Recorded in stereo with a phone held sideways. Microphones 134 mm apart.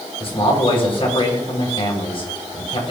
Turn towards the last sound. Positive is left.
turn(degrees=45)  # may be behind; listen again after turning